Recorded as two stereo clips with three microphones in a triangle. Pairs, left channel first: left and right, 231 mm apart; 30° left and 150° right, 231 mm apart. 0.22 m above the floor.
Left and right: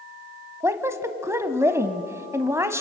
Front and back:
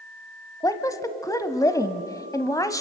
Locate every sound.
0.6 s a woman speaking: 25° right, 1.1 m